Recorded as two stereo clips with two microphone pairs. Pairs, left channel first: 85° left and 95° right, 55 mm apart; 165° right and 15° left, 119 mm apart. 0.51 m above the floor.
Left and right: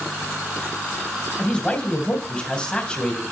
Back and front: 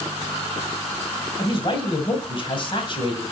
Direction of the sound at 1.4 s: 155° left.